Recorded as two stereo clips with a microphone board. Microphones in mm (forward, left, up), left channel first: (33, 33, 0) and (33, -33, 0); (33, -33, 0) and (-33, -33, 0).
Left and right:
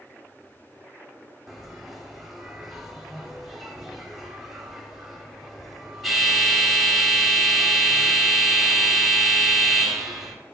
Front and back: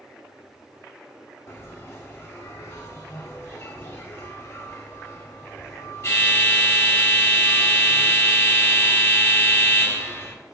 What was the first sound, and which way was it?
A bell, 5° right.